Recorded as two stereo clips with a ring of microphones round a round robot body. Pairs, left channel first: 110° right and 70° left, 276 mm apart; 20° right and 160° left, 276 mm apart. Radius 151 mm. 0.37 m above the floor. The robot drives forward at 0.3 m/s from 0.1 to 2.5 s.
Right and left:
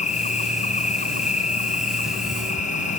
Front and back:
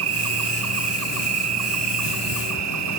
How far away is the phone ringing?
I don't hear a phone ringing.